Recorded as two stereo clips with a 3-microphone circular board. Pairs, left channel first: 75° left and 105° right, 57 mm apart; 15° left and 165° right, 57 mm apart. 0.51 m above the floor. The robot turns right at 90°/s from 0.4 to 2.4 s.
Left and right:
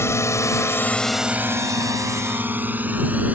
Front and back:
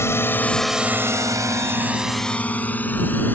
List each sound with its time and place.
0.0 s a drone: 45° left; by 3.4 s 40° right